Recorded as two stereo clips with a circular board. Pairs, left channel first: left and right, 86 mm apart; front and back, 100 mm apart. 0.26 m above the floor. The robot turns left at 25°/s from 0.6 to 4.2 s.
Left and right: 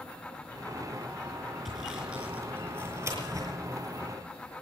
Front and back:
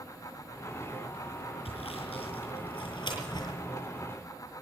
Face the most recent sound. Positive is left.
turn(degrees=-70)